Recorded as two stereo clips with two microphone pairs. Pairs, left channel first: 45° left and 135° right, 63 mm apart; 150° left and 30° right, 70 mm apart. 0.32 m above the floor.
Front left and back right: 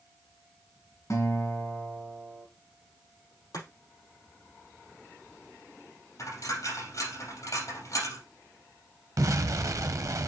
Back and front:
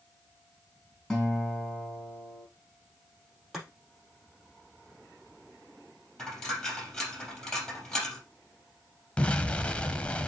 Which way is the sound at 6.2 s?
65° left.